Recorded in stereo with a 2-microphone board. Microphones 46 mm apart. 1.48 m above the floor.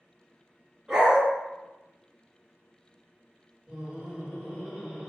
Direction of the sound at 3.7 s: Centre (ahead or behind).